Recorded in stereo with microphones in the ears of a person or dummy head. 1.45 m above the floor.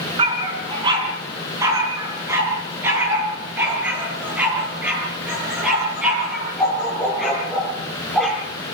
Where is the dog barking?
30° right (ahead or behind), 4 m; by 8.4 s centre (ahead or behind), 11.5 m.